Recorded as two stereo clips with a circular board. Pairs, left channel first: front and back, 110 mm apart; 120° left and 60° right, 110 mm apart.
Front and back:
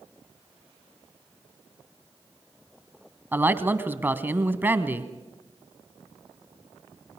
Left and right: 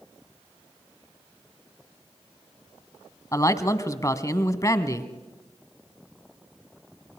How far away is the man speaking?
About 1.2 m.